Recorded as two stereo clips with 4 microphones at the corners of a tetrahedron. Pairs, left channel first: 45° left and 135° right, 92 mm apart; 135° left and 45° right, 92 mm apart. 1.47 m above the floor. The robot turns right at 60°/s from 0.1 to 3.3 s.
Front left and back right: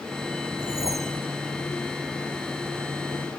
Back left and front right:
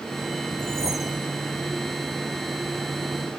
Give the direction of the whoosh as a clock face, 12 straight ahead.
4 o'clock.